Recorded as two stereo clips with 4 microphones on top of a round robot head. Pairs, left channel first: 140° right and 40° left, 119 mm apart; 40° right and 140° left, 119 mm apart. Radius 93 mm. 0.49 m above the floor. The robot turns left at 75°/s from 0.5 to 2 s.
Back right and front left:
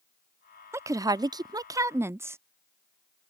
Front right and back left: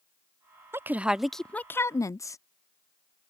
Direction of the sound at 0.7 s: 90° left.